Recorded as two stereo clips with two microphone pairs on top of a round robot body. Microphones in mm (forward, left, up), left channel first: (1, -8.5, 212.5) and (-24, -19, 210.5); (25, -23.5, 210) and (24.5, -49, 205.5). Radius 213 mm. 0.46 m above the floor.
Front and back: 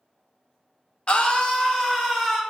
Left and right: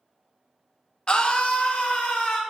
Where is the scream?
40° left, 1.0 m; by 2.4 s 100° left, 1.4 m.